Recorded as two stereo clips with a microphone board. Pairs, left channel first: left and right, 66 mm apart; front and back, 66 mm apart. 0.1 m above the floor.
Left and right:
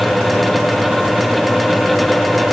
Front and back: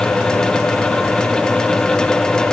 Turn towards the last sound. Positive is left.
No sound to turn to.